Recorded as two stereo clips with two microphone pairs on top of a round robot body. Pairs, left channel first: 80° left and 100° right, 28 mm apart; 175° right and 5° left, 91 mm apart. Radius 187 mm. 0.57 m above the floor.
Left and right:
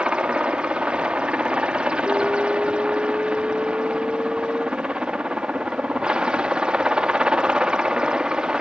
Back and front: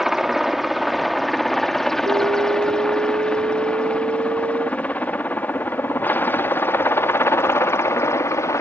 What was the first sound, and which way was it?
A helicopter, 75° right.